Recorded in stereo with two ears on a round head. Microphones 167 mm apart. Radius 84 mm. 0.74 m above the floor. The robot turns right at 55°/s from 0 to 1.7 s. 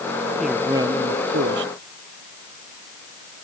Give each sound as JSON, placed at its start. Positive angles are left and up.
{"t": 0.4, "sound": "a man speaking", "azimuth_deg": 180}